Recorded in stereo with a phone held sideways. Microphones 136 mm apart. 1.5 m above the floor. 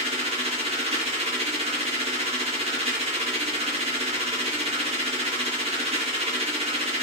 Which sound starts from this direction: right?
A machine running, at 0.0 s.